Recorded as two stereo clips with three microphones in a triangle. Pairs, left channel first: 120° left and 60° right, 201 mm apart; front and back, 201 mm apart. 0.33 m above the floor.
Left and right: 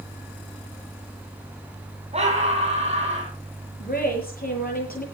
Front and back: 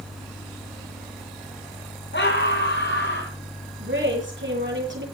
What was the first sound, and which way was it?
A scream, 5° right.